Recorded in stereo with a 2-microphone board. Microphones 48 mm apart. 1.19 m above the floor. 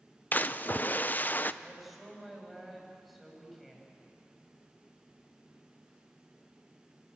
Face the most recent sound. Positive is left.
turn(degrees=0)  # may be behind; listen again after turning